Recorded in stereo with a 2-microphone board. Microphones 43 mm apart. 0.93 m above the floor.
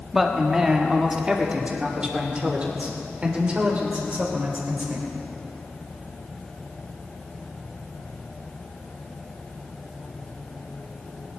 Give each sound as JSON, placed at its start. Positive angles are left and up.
{"t": 0.1, "sound": "a man speaking", "side_deg": -5, "distance_m": 1.5}